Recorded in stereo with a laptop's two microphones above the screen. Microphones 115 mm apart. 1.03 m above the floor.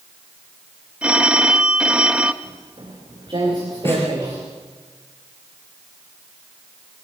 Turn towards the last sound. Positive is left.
turn(degrees=20)  # may be behind; listen again after turning